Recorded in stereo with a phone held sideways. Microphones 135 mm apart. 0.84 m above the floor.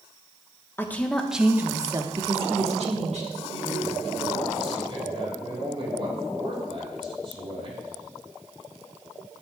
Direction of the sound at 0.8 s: 15° left (ahead or behind).